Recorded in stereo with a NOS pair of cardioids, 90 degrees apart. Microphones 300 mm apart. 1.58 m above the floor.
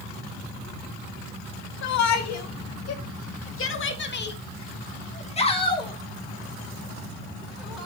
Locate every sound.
1.8 s a shout: 70° left, 2.5 m; by 7.9 s 5° right, 3 m